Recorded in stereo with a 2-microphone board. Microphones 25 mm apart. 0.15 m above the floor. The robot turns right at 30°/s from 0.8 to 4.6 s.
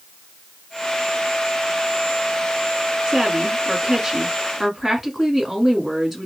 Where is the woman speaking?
50° right, 1.4 m; by 6.3 s 5° right, 1.4 m.